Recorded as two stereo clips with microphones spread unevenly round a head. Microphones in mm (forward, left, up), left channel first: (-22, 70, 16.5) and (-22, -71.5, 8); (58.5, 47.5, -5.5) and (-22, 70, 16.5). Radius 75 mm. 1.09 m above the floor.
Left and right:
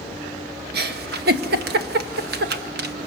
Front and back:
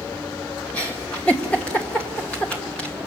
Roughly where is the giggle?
Right.